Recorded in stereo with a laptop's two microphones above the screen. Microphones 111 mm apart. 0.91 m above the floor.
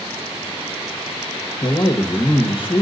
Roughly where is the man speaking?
Left.